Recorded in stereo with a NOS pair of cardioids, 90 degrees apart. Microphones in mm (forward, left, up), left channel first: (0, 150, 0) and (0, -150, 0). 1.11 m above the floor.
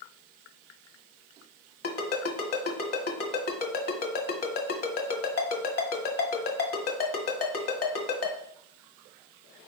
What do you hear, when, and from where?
1.8 s a ringtone: 55° left, 1.9 m